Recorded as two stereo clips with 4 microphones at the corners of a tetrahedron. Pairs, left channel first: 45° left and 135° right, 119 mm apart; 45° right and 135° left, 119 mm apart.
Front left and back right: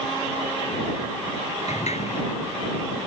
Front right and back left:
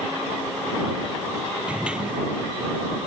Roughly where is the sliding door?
Ahead left.